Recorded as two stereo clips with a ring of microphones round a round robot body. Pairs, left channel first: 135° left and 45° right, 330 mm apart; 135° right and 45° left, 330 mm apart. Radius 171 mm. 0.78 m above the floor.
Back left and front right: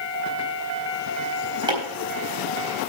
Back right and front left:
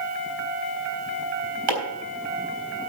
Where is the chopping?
30° left, 4 m.